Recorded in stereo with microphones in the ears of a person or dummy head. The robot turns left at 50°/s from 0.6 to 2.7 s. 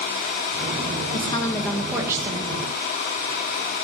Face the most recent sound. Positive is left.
turn(degrees=-45)